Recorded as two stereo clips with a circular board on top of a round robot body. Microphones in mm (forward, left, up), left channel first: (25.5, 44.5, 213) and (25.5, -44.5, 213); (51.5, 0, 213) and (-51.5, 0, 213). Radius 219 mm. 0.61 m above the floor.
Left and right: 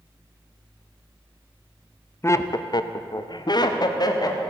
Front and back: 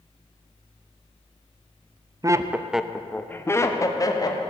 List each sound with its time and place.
2.2 s laughter: 140° left, 1.0 m; by 4.4 s 50° left, 2 m